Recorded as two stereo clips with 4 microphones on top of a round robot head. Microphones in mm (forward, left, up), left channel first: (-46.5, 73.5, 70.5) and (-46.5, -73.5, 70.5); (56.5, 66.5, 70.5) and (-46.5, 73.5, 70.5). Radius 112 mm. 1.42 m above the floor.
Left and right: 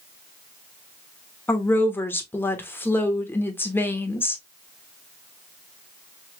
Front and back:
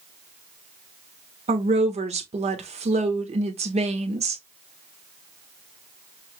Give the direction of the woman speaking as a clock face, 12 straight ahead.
6 o'clock.